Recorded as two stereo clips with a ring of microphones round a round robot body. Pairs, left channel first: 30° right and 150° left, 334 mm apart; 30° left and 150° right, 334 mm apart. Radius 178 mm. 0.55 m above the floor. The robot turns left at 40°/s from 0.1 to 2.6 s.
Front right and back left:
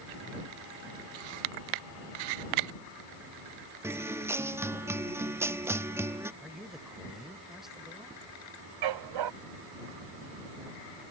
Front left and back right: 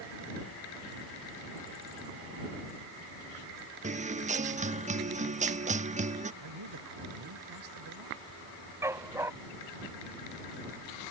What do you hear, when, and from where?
3.8 s a guitar: 140° right
6.4 s a man speaking: 120° right
8.8 s a dog barking: 130° left